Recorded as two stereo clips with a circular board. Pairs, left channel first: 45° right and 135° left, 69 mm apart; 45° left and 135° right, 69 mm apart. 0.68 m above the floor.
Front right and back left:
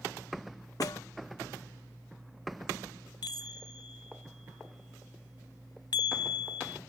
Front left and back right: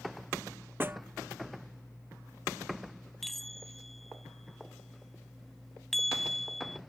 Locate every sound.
0.8 s a snare drum: 75° right
3.2 s a chime: 40° right